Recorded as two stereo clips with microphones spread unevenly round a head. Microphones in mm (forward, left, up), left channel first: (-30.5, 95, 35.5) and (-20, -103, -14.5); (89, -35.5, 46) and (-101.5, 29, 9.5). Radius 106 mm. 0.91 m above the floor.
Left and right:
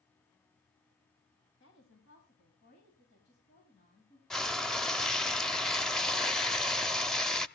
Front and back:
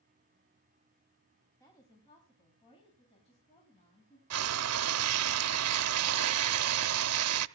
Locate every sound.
1.6 s a woman speaking: 55° left, 6 m; by 4.2 s 40° left, 8 m
4.3 s frying: 170° left, 0.6 m